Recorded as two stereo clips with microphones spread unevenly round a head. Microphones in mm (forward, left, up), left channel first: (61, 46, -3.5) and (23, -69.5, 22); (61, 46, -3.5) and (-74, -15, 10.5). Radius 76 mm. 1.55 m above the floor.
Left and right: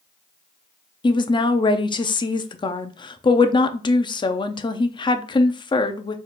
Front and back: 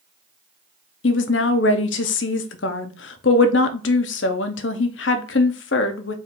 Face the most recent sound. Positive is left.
turn(degrees=20)